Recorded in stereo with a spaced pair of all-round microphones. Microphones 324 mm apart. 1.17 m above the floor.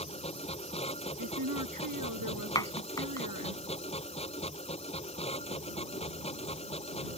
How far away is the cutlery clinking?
I don't hear cutlery clinking.